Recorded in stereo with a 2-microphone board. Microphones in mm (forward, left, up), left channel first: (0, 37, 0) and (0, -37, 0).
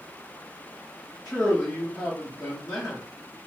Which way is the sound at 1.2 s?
25° left (ahead or behind).